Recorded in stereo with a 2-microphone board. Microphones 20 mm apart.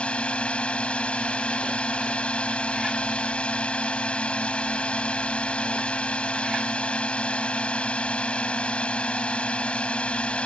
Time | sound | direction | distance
0.0 | a drone | 70° left (ahead or behind) | ?